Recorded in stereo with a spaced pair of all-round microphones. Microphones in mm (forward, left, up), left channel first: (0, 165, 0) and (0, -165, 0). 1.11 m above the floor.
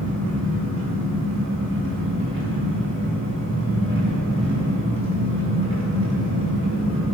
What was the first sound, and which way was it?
An engine running, 35° right (ahead or behind).